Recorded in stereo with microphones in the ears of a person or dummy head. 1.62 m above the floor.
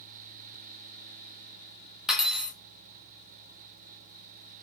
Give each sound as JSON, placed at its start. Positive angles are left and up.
{"t": 2.1, "sound": "cutlery clinking", "side_deg": 0, "distance_m": 1.2}